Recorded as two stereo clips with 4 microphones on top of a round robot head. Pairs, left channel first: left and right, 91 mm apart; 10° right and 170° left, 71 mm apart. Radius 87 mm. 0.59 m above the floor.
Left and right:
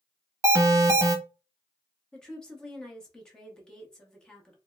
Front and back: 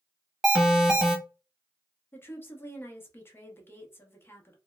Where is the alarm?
115° right, 0.9 m.